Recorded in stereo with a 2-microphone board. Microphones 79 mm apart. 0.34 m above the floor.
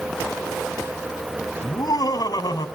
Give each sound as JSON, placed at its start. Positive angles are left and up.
{"t": 1.6, "sound": "laughter", "side_deg": 60, "distance_m": 3.0}